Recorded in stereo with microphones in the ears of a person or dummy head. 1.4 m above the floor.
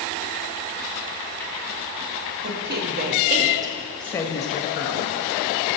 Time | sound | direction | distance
2.4 | a woman speaking | 55° right (ahead or behind) | 1.1 m